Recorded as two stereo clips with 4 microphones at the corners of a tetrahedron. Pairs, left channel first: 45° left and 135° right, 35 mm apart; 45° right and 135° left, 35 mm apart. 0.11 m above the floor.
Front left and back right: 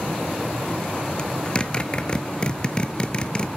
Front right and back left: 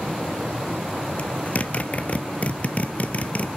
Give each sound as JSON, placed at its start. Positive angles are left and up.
{"t": 1.2, "sound": "a zipper", "azimuth_deg": -10, "distance_m": 0.7}